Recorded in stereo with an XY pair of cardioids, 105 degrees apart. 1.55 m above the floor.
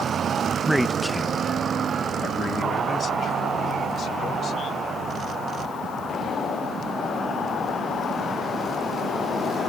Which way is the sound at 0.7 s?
10° right.